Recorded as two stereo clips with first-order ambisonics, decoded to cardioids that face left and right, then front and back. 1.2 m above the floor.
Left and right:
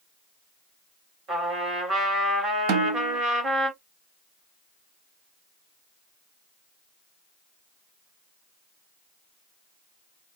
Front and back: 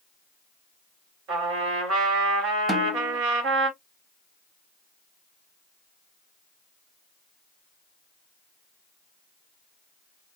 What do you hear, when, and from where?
1.3 s a trumpet: 140° right, 2.5 m
2.7 s a snare drum: 100° right, 0.7 m